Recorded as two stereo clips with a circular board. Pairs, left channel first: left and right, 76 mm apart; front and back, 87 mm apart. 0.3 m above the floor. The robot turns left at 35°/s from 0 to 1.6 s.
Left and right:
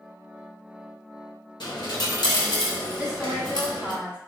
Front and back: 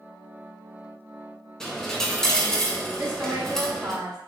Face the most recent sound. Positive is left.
turn(degrees=-145)